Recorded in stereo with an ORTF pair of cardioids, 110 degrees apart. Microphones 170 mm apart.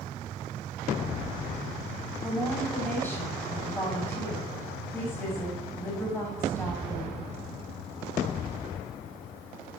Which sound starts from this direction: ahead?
A woman speaking, at 2.2 s.